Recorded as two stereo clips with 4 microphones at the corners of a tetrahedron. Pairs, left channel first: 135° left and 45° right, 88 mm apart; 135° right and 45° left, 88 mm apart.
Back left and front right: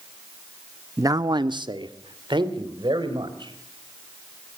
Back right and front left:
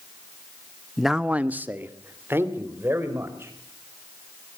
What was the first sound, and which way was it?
A man speaking, 50° right.